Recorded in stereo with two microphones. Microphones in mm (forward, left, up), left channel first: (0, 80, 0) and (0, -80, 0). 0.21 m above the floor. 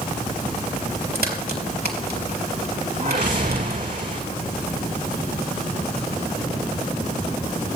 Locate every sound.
1.1 s a crack: 75° right (ahead or behind), 4 m
3.0 s a whoosh: 55° right (ahead or behind), 4 m